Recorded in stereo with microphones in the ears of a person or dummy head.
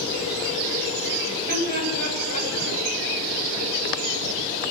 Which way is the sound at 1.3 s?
50° right (ahead or behind).